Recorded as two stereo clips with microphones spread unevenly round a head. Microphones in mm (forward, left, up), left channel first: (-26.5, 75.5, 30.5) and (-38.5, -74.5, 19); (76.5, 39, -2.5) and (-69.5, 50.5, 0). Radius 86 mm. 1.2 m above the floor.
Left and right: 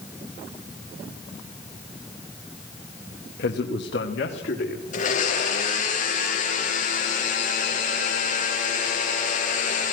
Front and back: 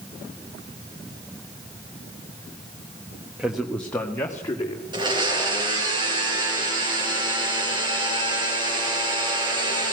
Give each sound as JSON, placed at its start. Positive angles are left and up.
{"t": 3.4, "sound": "a man speaking", "azimuth_deg": 95, "distance_m": 1.4}
{"t": 4.9, "sound": "a blender", "azimuth_deg": 120, "distance_m": 5.0}